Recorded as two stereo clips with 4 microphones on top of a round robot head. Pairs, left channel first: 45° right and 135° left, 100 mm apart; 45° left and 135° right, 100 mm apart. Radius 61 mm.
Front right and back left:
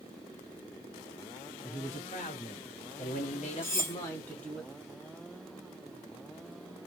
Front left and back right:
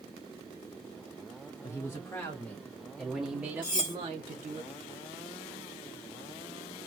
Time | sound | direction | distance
1.6 | a man speaking | 15° right | 1.8 m
3.6 | cutlery clinking | 10° left | 1.0 m